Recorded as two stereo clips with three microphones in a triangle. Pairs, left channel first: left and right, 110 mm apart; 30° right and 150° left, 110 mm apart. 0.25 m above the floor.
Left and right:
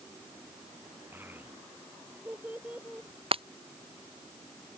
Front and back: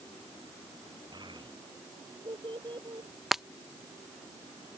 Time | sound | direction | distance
1.1 | a child speaking | 160° right | ?
3.3 | breaking glass | 120° right | ?